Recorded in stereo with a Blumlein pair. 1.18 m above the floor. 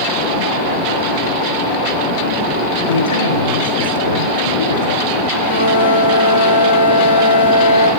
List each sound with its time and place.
2.9 s a man speaking: 70° left, 5.5 m
5.3 s a flute: 70° left, 5.5 m